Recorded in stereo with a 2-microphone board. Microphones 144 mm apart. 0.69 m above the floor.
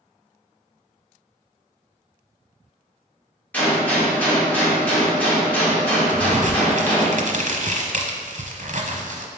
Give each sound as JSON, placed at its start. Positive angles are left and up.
{"t": 3.5, "sound": "a gunshot", "side_deg": 10, "distance_m": 2.0}
{"t": 6.1, "sound": "a crack", "side_deg": -65, "distance_m": 0.9}